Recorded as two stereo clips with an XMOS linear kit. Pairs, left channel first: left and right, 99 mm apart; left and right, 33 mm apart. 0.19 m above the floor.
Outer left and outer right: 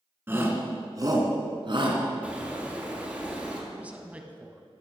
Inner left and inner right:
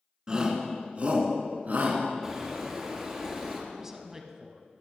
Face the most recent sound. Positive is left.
turn(degrees=-15)  # may be behind; listen again after turning